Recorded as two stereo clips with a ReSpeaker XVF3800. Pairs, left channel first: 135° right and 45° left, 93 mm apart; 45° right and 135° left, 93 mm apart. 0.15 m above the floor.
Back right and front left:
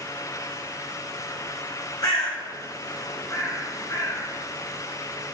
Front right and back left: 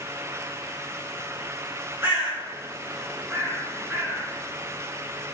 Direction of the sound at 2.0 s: 165° right.